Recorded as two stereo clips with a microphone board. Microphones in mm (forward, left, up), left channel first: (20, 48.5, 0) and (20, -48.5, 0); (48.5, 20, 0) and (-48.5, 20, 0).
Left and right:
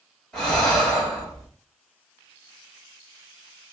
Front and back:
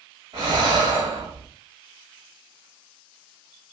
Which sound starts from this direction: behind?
Breathing, at 0.3 s.